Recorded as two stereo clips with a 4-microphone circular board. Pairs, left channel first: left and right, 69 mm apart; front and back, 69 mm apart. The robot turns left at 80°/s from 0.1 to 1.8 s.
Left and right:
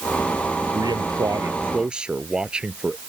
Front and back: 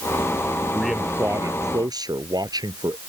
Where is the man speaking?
80° right; by 3.0 s 165° right.